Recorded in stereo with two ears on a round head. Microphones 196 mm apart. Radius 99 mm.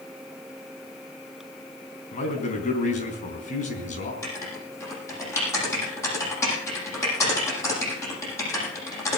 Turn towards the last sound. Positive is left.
turn(degrees=15)  # may be behind; listen again after turning